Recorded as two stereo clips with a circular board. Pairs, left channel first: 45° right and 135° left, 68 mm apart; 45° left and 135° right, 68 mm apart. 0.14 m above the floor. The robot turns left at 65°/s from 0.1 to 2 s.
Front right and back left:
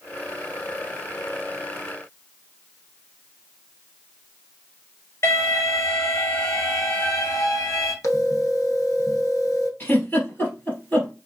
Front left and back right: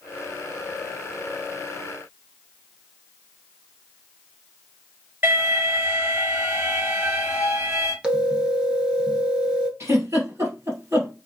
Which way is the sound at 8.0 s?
65° right.